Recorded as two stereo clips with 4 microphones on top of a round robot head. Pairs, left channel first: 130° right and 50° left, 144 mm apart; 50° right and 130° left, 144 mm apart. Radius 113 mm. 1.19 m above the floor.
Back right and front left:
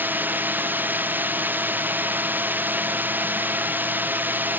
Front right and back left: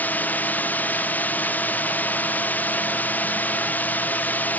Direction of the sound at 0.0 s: Straight ahead.